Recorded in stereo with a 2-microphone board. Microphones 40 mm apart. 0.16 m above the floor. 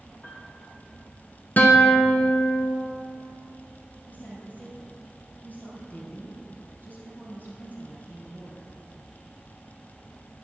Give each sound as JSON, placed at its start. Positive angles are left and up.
{"t": 0.2, "sound": "a piano", "side_deg": 55, "distance_m": 2.0}
{"t": 1.6, "sound": "a guitar", "side_deg": 50, "distance_m": 1.1}
{"t": 4.1, "sound": "a woman speaking", "side_deg": 50, "distance_m": 3.5}